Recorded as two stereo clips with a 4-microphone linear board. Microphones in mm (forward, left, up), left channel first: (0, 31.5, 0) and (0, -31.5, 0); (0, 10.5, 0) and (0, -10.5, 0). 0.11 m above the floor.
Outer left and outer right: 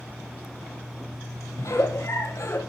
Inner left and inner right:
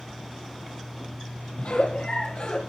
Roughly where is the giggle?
Left.